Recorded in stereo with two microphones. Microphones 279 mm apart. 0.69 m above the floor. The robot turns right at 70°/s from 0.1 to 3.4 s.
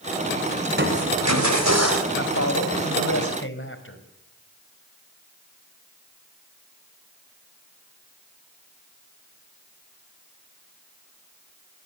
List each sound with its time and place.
0.7 s crushing: 145° right, 4 m; by 2.0 s 50° right, 4 m
2.1 s a man speaking: 45° left, 4 m; by 4.0 s 135° left, 4 m